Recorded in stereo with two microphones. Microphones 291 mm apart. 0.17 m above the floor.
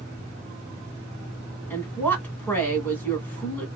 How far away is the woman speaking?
About 1.5 m.